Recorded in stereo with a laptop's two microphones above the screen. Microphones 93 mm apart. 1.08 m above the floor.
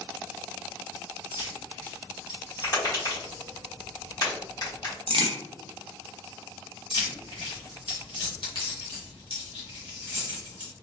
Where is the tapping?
50° left (ahead or behind), 1.6 m.